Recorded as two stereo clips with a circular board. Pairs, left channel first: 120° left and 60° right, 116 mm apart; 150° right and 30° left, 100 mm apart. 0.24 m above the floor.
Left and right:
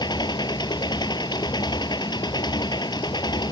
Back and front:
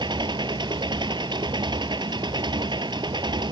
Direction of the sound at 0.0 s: 70° left.